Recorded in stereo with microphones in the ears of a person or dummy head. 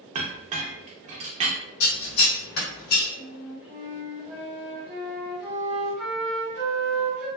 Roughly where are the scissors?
Left.